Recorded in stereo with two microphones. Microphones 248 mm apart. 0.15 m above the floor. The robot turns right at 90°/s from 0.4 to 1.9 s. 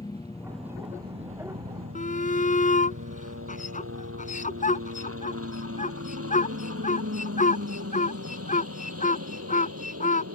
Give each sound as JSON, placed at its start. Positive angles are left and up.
{"t": 0.0, "sound": "a helicopter", "side_deg": 15}
{"t": 1.9, "sound": "a shout", "side_deg": 30}